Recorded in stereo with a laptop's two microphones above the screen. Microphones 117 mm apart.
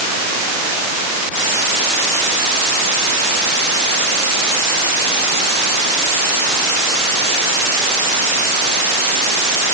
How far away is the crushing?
No crushing in this recording.